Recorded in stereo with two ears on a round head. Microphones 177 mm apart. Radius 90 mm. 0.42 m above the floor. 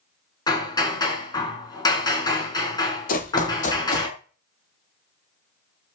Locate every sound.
0.5 s hammering: 20° left (ahead or behind), 5 m
3.1 s running footsteps: 45° left (ahead or behind), 4 m; by 4.1 s 35° left (ahead or behind), 3.5 m